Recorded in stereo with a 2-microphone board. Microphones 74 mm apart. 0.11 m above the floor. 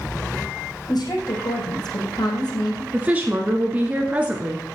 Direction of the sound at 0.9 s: 70° left (ahead or behind).